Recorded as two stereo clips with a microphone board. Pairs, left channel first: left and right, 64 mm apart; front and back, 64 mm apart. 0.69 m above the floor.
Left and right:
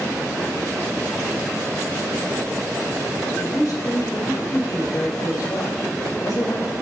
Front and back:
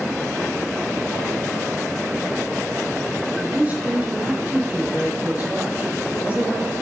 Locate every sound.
3.4 s a woman speaking: 115° left, 4 m